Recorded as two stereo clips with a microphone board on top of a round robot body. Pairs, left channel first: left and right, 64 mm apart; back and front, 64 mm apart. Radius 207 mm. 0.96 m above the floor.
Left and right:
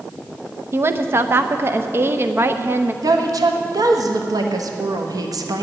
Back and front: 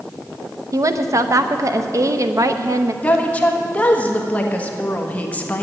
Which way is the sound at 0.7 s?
35° right.